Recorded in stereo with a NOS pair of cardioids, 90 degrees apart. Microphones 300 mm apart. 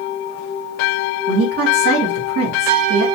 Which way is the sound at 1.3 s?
55° right.